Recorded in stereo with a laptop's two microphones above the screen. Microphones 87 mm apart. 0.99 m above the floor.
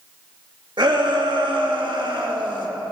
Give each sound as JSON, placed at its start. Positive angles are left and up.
{"t": 0.8, "sound": "a shout", "side_deg": -60, "distance_m": 1.6}